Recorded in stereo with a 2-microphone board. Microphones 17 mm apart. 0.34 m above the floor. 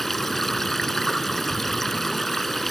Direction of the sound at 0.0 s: 20° left (ahead or behind).